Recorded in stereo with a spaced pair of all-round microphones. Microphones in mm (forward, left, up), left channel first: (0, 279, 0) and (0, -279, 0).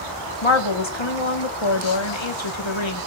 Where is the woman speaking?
55° left (ahead or behind), 1.7 m.